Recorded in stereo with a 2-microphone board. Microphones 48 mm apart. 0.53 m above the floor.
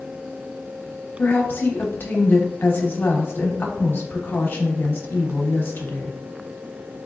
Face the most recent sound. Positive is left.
turn(degrees=45)  # may be behind; listen again after turning